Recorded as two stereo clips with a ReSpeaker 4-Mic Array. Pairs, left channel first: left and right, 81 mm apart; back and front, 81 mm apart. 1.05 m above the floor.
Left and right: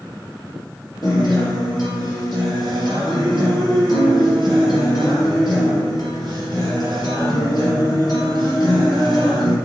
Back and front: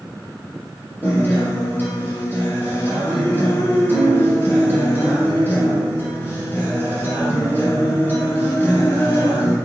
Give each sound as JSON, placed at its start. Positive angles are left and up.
{"t": 1.0, "sound": "a guitar", "azimuth_deg": 120, "distance_m": 3.5}